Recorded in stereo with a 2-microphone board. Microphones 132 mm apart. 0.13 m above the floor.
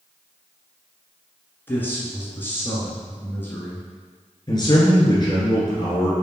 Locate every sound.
1.7 s a man speaking: 15° left (ahead or behind), 1.3 m
4.5 s a man speaking: 35° left (ahead or behind), 1.7 m